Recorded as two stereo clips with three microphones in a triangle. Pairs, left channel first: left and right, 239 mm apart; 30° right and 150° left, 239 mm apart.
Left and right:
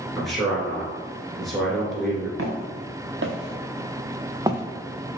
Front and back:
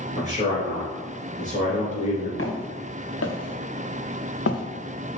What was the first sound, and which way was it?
A man speaking, straight ahead.